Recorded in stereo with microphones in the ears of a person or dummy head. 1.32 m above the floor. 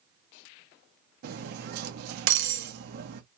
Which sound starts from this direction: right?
Cutlery clinking, at 1.2 s.